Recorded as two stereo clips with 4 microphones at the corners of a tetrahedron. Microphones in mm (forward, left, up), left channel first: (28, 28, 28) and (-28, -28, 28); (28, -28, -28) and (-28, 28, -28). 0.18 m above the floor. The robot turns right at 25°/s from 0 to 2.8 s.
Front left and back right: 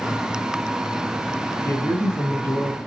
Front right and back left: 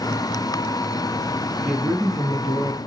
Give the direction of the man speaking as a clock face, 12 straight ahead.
11 o'clock.